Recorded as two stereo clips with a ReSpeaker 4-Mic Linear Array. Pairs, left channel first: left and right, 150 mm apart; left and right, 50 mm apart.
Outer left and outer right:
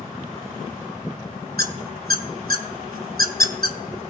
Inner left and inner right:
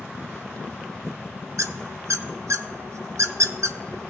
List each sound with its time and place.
1.6 s a squeak: 85° right, 0.6 m